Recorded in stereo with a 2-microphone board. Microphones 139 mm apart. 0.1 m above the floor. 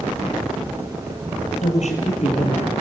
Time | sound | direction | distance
1.6 | a woman speaking | 60° left (ahead or behind) | 3 m